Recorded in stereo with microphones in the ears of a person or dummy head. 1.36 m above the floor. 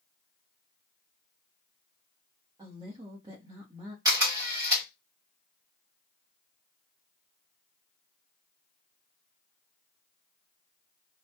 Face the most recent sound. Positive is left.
turn(degrees=-10)  # may be behind; listen again after turning